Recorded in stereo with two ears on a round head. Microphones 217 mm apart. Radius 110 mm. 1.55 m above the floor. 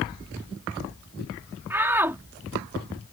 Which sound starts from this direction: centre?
A shout, at 1.7 s.